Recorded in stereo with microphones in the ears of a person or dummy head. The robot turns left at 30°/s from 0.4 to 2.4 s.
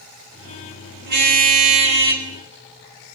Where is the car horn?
120° right, 3 m; by 2.3 s 160° right, 3 m.